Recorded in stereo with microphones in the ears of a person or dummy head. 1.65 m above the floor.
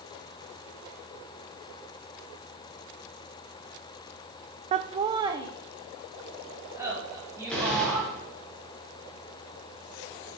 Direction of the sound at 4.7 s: 35° right (ahead or behind).